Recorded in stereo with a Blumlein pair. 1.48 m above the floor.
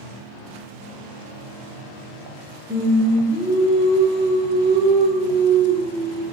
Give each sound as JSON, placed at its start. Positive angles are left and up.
{"t": 2.7, "sound": "singing", "azimuth_deg": -5, "distance_m": 0.7}